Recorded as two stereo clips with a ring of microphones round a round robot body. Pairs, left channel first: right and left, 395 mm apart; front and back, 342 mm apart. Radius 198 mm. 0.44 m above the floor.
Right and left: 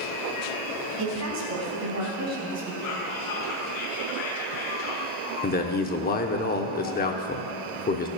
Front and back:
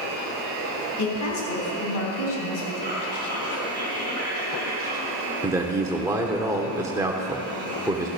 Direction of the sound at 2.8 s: 120° right.